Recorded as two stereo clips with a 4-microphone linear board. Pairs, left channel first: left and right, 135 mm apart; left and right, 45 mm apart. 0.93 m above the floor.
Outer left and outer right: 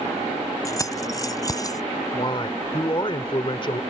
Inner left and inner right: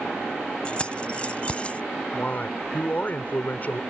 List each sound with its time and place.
0.7 s keys jangling: 25° left (ahead or behind); by 1.8 s 30° left (ahead or behind)
2.1 s a man speaking: 40° left (ahead or behind)